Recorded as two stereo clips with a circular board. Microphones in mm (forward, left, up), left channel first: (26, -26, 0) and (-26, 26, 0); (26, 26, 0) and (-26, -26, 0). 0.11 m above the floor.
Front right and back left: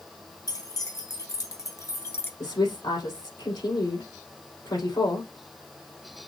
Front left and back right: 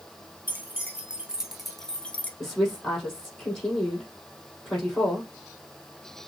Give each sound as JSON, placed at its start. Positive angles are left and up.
{"t": 0.5, "sound": "keys jangling", "azimuth_deg": -70, "distance_m": 1.9}
{"t": 2.4, "sound": "a woman speaking", "azimuth_deg": -40, "distance_m": 4.0}